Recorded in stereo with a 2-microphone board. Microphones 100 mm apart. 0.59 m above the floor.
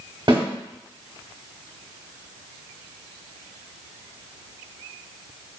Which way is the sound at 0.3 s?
55° right (ahead or behind).